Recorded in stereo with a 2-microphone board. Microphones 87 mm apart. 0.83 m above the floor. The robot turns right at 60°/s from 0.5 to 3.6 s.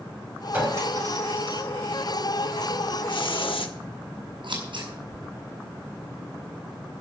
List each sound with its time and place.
0.5 s a clink: 20° right (ahead or behind), 4 m; by 1.6 s 85° right, 4 m
3.1 s a hiss: 70° left, 1.1 m; by 3.8 s 100° left, 1.1 m
4.4 s scissors: 70° right (ahead or behind), 5 m